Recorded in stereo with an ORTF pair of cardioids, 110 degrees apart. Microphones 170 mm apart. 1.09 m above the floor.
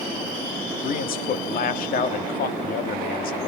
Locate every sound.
0.8 s a man speaking: 60° left, 1.8 m